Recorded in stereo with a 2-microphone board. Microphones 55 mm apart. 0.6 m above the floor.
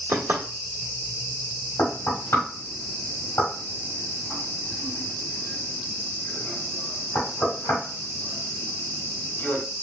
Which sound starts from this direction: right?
Knocking, at 0.1 s.